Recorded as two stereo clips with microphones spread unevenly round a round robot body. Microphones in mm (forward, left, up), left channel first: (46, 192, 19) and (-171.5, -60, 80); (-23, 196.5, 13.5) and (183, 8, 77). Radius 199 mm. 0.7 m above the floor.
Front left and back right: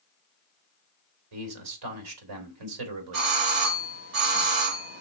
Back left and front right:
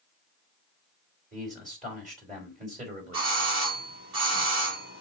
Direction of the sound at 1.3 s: 115° right.